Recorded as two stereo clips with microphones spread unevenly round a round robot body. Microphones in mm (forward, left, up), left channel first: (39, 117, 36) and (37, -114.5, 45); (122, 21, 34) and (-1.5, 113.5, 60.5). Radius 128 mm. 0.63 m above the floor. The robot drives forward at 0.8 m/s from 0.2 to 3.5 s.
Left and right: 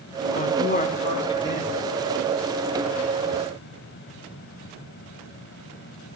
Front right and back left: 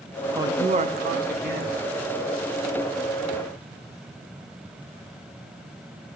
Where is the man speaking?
65° left, 0.6 m; by 1.9 s 160° left, 1.2 m.